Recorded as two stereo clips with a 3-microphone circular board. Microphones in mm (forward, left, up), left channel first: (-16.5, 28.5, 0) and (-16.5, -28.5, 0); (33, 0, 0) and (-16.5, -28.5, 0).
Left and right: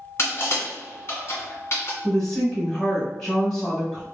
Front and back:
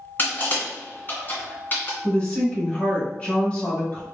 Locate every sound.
0.2 s crushing: 75° left, 1.5 m
2.0 s a woman speaking: 25° left, 1.4 m